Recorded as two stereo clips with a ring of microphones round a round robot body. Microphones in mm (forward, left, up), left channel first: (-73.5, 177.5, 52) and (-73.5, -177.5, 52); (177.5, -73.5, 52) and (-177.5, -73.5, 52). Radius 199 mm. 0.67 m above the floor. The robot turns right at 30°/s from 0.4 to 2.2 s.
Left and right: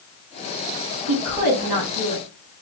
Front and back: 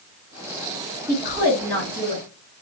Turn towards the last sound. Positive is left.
turn(degrees=-70)